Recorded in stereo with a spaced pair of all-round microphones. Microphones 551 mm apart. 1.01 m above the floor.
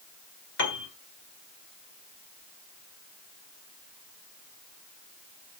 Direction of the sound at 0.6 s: 50° left (ahead or behind).